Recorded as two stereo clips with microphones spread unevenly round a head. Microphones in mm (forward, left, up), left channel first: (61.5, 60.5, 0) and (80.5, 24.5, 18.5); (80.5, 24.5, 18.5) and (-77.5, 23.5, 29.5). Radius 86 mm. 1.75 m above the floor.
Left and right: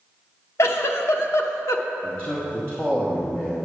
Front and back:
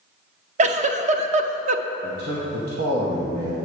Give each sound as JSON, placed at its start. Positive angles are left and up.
{"t": 0.6, "sound": "a giggle", "azimuth_deg": 135, "distance_m": 0.5}
{"t": 2.0, "sound": "a man speaking", "azimuth_deg": -145, "distance_m": 1.3}